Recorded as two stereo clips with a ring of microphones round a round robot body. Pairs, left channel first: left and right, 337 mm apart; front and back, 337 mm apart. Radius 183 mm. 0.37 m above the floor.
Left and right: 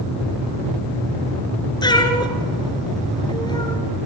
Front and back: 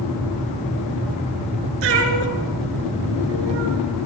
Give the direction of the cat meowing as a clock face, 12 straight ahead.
6 o'clock.